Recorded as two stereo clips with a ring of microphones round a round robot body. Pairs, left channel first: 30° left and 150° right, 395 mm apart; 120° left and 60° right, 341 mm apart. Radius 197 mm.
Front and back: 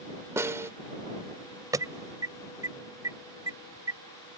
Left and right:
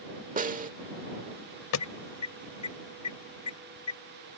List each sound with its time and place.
0.4 s a snare drum: 75° right
1.7 s an alarm: 130° left